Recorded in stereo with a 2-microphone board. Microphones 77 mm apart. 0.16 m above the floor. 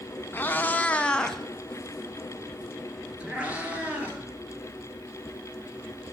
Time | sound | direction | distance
0.3 | a cat meowing | 25° left (ahead or behind) | 0.7 m